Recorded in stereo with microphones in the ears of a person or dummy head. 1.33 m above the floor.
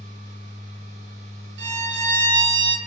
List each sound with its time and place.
0.0 s a machine running: 40° right (ahead or behind), 0.7 m
1.6 s a violin: 55° right (ahead or behind), 0.5 m